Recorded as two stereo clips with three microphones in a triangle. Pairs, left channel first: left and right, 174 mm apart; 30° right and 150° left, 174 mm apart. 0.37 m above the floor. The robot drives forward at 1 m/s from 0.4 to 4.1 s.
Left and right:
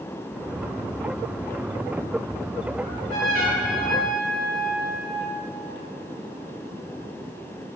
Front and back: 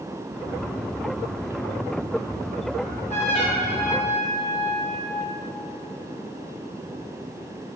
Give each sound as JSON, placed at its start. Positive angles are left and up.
{"t": 2.8, "sound": "a trumpet", "azimuth_deg": -65, "distance_m": 2.5}